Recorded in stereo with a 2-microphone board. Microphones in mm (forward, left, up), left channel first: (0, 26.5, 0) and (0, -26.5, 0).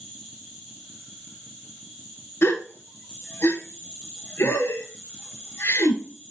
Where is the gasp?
45° left (ahead or behind), 1.0 m.